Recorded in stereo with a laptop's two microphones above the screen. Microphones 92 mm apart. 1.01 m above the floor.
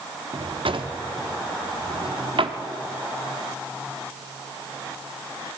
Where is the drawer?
65° right (ahead or behind), 0.9 m.